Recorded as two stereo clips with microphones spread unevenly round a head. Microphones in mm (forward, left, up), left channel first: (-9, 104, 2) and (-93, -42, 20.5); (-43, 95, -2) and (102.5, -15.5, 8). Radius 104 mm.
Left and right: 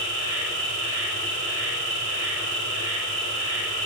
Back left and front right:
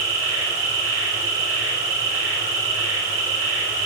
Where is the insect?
95° right, 4.5 m.